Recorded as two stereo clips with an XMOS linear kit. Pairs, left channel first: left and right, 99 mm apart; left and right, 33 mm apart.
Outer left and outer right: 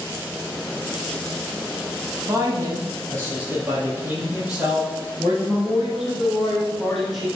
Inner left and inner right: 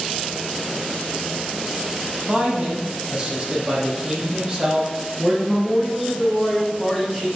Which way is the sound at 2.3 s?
35° right (ahead or behind).